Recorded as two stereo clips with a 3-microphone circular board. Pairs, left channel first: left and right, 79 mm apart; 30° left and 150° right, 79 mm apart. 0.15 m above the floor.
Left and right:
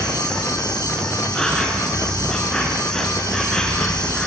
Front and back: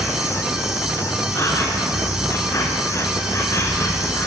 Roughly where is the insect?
Ahead.